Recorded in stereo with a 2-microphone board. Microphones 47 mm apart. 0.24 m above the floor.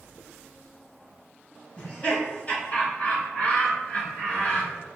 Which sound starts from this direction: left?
Laughter, at 1.8 s.